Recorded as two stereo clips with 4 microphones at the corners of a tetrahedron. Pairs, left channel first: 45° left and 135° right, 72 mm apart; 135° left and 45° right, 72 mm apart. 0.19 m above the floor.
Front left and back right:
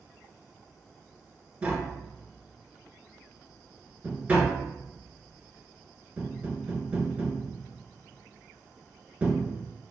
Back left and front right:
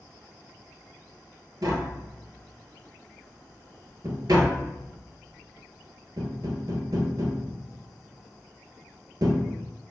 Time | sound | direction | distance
1.6 | tapping | 65° right | 0.6 m